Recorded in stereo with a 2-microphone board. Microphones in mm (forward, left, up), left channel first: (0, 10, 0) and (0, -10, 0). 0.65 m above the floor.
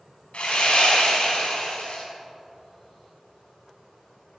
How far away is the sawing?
About 3 m.